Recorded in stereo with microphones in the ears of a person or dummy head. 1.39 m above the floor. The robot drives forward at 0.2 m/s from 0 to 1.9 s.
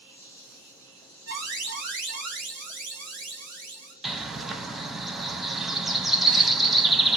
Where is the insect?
70° right (ahead or behind), 3.5 m; by 7.2 s 65° right (ahead or behind), 3.5 m.